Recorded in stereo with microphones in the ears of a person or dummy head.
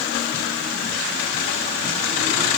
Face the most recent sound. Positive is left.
No sound to turn to.